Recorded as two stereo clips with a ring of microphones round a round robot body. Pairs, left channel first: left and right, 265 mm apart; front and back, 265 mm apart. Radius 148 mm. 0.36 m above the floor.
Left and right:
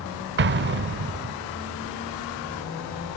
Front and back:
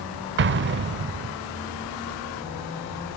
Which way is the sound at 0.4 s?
135° right.